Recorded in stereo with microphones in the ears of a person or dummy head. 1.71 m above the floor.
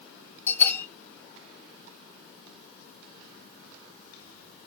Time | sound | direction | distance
0.5 | a bell | 10° left (ahead or behind) | 2.5 m